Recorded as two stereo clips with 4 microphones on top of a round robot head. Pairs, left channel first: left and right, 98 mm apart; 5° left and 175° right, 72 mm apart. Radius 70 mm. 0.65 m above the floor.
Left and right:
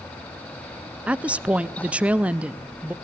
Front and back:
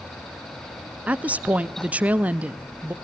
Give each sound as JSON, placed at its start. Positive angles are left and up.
{"t": 1.1, "sound": "a woman speaking", "azimuth_deg": -145, "distance_m": 0.6}